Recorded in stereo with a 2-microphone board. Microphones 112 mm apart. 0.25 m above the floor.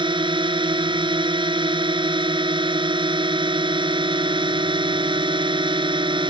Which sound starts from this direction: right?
A drone, at 0.0 s.